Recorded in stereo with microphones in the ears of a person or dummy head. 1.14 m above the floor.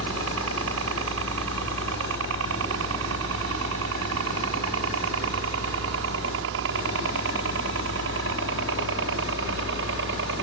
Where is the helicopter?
65° right (ahead or behind); by 10.4 s 55° right (ahead or behind).